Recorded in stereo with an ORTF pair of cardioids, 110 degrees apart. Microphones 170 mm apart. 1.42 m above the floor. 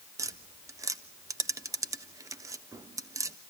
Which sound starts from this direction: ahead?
Tapping, at 0.2 s.